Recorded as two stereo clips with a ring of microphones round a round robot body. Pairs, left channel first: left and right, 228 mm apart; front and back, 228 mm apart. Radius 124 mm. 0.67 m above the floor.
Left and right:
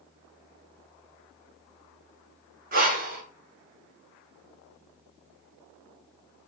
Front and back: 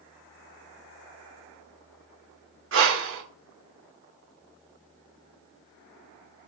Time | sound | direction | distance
2.7 | breathing | 145° right | 0.9 m